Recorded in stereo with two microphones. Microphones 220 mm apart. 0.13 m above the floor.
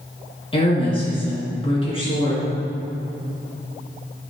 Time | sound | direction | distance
0.5 | a woman speaking | 25° left (ahead or behind) | 2.0 m